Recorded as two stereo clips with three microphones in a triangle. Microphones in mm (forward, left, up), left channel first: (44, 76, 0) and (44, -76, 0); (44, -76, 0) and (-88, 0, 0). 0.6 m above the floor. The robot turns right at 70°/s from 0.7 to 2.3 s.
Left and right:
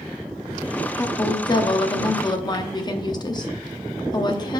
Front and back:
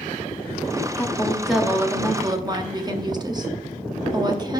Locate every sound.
1.0 s a woman speaking: 25° left, 0.7 m; by 4.6 s 120° left, 0.7 m